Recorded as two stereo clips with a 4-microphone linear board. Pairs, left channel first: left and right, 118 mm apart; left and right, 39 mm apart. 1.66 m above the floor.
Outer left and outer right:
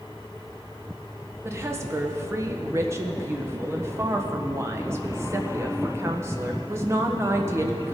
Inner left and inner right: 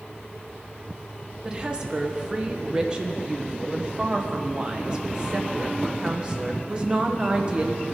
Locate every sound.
1.4 s a woman speaking: 20° right (ahead or behind), 1.3 m